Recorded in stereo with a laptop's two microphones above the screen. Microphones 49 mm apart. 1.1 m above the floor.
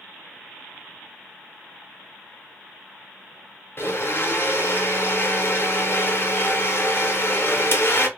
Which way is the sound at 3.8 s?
50° left (ahead or behind).